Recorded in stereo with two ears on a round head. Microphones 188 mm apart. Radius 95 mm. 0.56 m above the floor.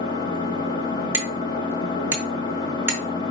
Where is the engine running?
20° left (ahead or behind), 1.0 m.